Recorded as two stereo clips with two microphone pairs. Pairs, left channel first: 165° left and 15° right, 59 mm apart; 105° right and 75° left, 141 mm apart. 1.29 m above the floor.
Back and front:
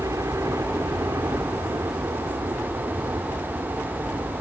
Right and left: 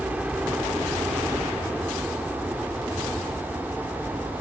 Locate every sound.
0.0 s a helicopter: 5° right; by 4.4 s 15° right